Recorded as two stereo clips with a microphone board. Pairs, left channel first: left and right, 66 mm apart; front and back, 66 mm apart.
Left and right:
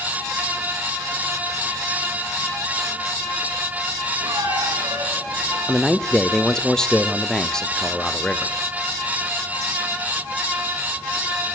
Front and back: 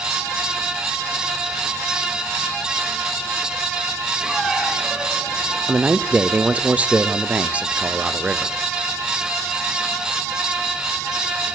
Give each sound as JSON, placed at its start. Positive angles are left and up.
{"t": 4.2, "sound": "a squeak", "azimuth_deg": -95, "distance_m": 5.5}
{"t": 5.7, "sound": "a man speaking", "azimuth_deg": 155, "distance_m": 1.3}